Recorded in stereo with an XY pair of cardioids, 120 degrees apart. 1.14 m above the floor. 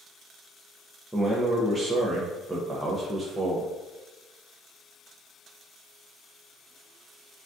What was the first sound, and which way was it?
A man speaking, 15° right.